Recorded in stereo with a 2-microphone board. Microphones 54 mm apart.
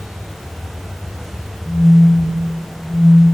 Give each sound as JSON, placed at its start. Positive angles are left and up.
{"t": 1.6, "sound": "a phone buzzing", "side_deg": 30, "distance_m": 5.0}